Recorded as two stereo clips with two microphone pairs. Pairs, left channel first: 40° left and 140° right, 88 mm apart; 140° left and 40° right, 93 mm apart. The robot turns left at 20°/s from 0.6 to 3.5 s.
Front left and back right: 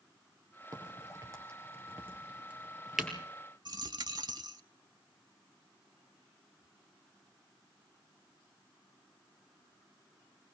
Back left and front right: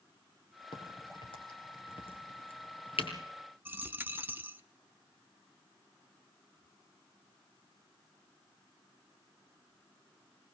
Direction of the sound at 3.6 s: 105° right.